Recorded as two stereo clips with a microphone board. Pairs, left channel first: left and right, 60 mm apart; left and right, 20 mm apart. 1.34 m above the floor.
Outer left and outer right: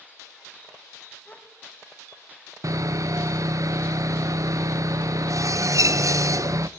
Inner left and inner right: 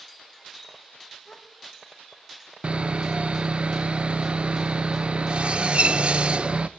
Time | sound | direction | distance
1.2 | a gasp | 25° left (ahead or behind) | 1.7 m
2.6 | sawing | 65° right (ahead or behind) | 0.6 m